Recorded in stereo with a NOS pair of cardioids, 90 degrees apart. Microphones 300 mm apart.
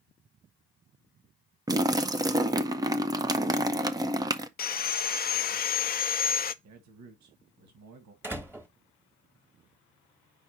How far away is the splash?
About 0.7 m.